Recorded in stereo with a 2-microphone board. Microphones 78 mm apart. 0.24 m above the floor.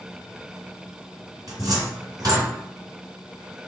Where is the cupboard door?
55° right (ahead or behind), 2.5 m.